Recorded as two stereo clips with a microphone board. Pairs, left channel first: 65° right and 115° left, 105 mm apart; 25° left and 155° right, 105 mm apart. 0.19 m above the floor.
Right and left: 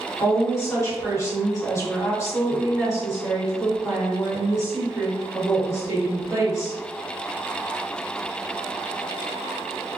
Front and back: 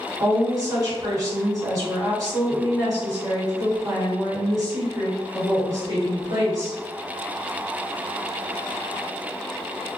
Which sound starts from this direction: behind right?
A woman speaking, at 0.2 s.